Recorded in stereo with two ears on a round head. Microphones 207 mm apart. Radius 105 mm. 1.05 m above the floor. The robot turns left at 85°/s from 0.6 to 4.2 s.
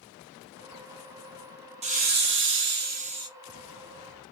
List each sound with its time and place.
1.8 s a hiss: 35° right, 0.6 m; by 3.3 s 160° right, 0.6 m